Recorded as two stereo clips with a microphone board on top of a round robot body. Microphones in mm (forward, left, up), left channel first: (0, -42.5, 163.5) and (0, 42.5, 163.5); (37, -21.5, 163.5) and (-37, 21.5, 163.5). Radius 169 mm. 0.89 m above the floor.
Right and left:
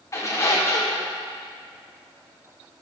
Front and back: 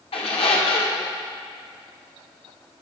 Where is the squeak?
35° right, 0.9 m.